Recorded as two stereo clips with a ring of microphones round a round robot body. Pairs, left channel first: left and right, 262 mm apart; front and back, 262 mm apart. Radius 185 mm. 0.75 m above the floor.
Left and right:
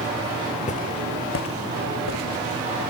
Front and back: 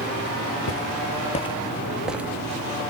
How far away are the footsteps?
About 1.3 m.